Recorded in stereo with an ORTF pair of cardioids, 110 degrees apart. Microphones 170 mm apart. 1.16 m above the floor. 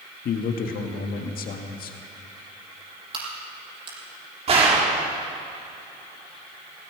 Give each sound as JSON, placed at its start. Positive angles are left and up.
{"t": 0.2, "sound": "a man speaking", "azimuth_deg": 60, "distance_m": 1.8}
{"t": 3.1, "sound": "a crack", "azimuth_deg": -35, "distance_m": 6.5}
{"t": 4.5, "sound": "a gunshot", "azimuth_deg": -35, "distance_m": 3.5}